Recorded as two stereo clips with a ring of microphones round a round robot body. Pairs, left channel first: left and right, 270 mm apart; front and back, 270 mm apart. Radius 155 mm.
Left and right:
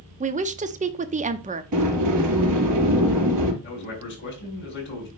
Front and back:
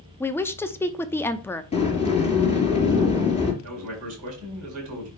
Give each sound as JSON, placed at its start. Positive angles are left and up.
{"t": 0.2, "sound": "a woman speaking", "azimuth_deg": -75, "distance_m": 0.8}
{"t": 1.7, "sound": "a sliding door", "azimuth_deg": -70, "distance_m": 3.5}
{"t": 3.6, "sound": "a man speaking", "azimuth_deg": 140, "distance_m": 5.0}